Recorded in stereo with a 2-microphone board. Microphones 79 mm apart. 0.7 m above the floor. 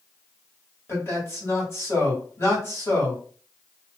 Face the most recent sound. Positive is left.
turn(degrees=35)  # may be behind; listen again after turning